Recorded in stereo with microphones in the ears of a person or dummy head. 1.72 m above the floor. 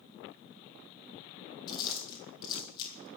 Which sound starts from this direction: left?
Chewing, at 1.7 s.